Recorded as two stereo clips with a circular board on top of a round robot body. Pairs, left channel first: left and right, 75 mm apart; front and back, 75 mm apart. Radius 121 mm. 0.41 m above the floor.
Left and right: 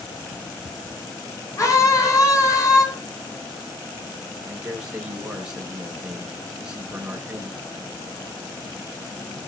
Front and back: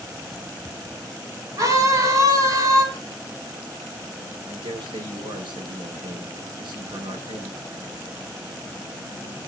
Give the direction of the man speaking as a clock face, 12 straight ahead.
6 o'clock.